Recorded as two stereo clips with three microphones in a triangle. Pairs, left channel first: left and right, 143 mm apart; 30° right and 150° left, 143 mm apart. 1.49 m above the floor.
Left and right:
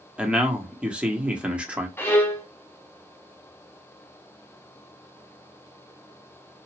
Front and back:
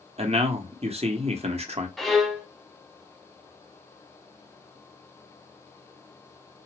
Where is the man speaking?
170° right, 0.8 m.